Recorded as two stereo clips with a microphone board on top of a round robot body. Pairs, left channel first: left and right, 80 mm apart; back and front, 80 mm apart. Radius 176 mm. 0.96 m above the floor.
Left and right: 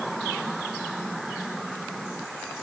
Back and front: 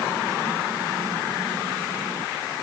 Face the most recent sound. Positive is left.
No sound to turn to.